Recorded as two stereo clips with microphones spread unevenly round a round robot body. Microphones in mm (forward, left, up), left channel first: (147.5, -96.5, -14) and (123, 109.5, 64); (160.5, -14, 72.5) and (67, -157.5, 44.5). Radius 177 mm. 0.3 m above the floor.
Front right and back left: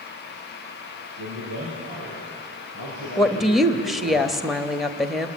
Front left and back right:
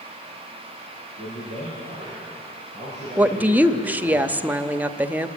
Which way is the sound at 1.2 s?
130° left.